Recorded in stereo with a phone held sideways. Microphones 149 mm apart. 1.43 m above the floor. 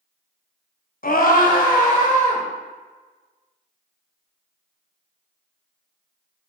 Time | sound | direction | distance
1.0 | a scream | 75° left (ahead or behind) | 0.6 m